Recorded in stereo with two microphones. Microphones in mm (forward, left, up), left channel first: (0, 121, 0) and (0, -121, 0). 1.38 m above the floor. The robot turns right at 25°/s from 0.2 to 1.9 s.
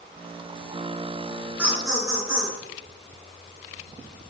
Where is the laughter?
5° right (ahead or behind), 1.7 m; by 2.6 s 15° right (ahead or behind), 1.7 m.